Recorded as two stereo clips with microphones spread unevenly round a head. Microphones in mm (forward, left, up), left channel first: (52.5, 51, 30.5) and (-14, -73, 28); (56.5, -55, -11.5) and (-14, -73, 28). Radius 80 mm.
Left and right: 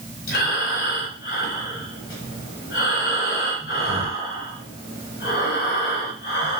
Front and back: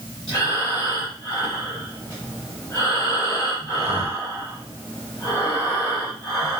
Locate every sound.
0.3 s breathing: 100° left, 1.4 m